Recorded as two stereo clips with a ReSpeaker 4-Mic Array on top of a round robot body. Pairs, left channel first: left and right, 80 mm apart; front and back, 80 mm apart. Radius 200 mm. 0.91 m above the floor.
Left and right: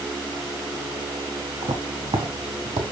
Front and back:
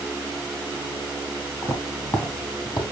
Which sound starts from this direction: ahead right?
Footsteps, at 1.6 s.